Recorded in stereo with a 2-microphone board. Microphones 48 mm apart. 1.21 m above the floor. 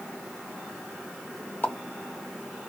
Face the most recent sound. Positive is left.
turn(degrees=40)  # may be behind; listen again after turning